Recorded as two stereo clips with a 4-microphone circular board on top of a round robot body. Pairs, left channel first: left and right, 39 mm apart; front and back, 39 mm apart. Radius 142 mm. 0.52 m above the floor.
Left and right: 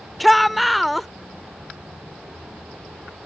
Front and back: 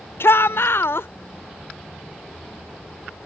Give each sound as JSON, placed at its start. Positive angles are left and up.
{"t": 0.2, "sound": "a shout", "azimuth_deg": 0}